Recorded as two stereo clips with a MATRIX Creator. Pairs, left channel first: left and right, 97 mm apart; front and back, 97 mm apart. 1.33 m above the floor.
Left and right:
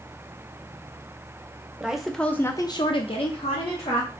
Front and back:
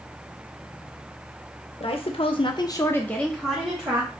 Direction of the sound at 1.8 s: 10° right.